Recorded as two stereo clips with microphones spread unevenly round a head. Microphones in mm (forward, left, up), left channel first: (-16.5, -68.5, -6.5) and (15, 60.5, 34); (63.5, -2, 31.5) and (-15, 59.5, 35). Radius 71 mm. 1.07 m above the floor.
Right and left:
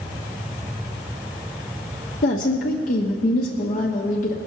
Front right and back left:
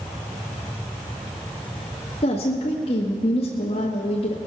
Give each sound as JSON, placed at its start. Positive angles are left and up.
{"t": 2.2, "sound": "a woman speaking", "azimuth_deg": -80, "distance_m": 1.3}